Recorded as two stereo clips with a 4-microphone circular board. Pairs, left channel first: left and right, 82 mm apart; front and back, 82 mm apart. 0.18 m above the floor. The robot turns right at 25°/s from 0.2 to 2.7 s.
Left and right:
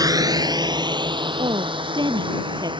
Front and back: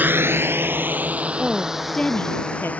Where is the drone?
115° right; by 2.8 s 75° right.